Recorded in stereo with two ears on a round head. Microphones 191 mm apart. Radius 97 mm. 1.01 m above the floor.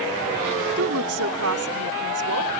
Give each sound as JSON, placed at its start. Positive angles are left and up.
{"t": 0.8, "sound": "a woman speaking", "side_deg": -75}